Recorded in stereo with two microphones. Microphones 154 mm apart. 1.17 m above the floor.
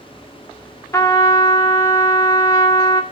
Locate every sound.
0.9 s a trumpet: 20° left (ahead or behind), 1.2 m